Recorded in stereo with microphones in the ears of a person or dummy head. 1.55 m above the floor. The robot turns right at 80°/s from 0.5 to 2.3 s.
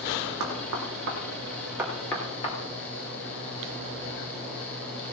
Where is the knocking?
65° right (ahead or behind), 3 m; by 2.5 s 30° left (ahead or behind), 3 m.